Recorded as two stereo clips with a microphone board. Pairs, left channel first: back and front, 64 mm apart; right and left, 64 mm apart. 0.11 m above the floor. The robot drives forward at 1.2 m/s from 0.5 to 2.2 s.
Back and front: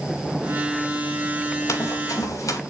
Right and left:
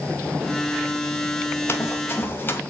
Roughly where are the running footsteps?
Behind right.